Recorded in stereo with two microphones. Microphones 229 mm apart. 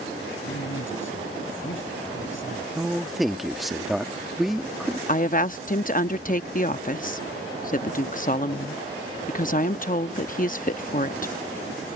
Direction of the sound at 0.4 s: 60° left (ahead or behind).